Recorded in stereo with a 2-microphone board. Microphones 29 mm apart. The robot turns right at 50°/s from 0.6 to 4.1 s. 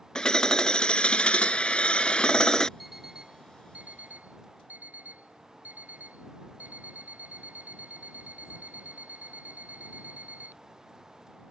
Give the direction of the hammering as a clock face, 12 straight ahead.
11 o'clock.